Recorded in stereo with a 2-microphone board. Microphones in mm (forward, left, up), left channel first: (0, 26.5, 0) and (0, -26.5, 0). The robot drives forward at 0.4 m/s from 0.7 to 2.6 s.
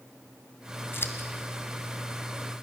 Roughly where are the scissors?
Left.